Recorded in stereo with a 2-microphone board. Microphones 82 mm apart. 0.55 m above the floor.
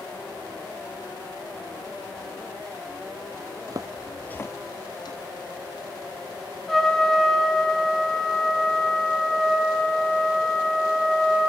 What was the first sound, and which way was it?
Footsteps, 50° right (ahead or behind).